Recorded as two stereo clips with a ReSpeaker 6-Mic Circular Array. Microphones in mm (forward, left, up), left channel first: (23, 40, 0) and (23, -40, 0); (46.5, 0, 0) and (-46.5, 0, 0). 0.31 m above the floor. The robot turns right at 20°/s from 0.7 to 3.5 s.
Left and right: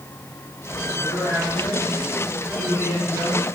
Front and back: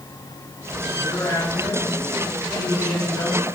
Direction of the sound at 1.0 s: 60° left.